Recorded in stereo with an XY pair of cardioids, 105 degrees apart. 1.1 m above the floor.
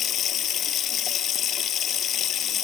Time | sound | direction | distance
0.0 | running water | 65° left | ?